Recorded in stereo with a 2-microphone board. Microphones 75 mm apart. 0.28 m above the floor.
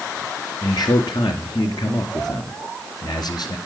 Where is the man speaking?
65° left (ahead or behind), 3.5 m.